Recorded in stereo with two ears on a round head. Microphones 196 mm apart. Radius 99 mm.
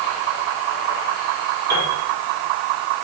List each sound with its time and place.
1.7 s a piano: 45° right (ahead or behind), 10 m